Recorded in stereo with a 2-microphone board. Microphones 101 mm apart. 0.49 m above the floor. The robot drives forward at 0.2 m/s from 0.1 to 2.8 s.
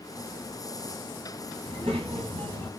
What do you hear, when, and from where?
1.6 s a child speaking: 80° right, 2 m